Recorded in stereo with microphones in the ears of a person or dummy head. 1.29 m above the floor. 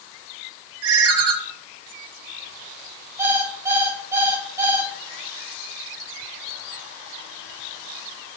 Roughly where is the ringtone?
Right.